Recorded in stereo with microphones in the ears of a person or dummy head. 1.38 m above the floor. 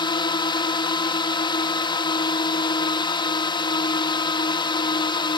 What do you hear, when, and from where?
0.0 s a drone: 25° left (ahead or behind)